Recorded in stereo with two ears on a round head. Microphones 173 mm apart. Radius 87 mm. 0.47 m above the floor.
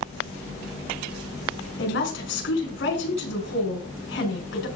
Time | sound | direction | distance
1.8 | a woman speaking | 65° left (ahead or behind) | 6 m